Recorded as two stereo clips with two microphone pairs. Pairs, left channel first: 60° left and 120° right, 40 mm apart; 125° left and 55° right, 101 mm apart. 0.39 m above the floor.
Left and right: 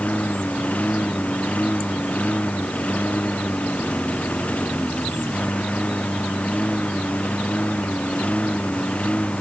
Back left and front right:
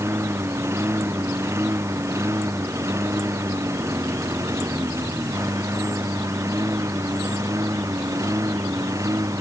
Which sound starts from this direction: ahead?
A lawn mower, at 0.0 s.